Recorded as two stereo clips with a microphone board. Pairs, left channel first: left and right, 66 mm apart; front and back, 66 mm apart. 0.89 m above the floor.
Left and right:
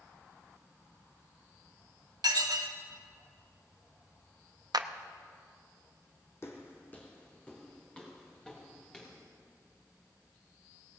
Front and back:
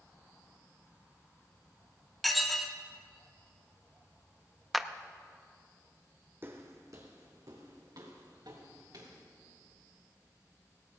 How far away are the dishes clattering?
About 0.9 m.